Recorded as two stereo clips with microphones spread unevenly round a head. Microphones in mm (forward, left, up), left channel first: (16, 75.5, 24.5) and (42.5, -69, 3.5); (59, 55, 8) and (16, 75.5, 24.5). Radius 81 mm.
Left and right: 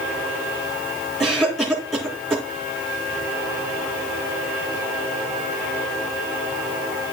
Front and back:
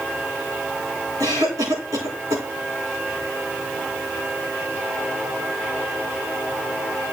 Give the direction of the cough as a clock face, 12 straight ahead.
6 o'clock.